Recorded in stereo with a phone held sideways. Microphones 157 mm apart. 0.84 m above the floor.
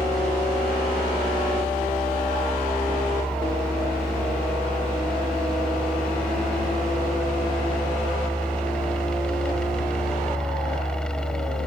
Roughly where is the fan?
Centre.